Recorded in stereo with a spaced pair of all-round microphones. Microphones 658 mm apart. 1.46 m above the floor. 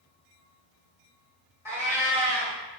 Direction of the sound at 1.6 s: 5° right (ahead or behind).